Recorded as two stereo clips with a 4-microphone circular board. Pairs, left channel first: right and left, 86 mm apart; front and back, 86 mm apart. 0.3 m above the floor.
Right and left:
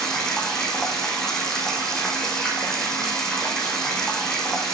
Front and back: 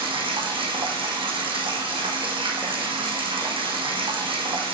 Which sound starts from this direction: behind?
Running water, at 0.0 s.